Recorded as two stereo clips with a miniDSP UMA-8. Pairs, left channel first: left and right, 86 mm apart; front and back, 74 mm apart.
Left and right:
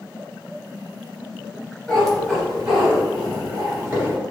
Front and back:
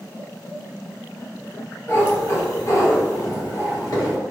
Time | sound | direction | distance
1.9 | a cat meowing | 15° left | 0.9 m